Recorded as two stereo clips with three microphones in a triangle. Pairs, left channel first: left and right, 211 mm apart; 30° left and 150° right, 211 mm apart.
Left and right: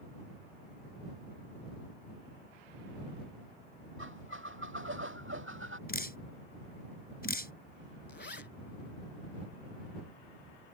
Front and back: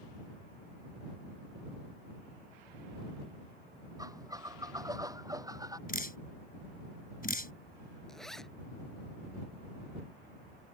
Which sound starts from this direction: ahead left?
Dripping, at 5.9 s.